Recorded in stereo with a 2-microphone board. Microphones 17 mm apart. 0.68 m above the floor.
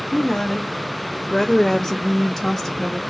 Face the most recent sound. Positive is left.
turn(degrees=0)  # may be behind; listen again after turning